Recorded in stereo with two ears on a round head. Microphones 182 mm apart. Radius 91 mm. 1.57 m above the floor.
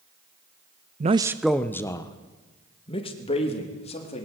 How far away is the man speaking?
About 0.6 m.